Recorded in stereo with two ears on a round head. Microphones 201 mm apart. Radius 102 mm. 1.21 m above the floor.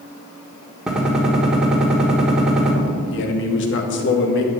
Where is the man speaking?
55° left (ahead or behind), 1.5 m.